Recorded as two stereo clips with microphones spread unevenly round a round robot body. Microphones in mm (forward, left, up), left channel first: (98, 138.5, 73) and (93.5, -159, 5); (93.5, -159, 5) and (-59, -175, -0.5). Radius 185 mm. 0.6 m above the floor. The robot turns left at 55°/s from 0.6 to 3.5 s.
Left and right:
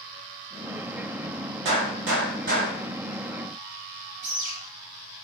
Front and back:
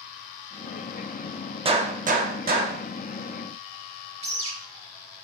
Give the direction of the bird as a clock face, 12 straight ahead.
4 o'clock.